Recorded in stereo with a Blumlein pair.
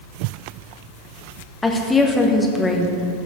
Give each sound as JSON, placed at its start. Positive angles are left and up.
{"t": 1.6, "sound": "a woman speaking", "azimuth_deg": 15, "distance_m": 1.4}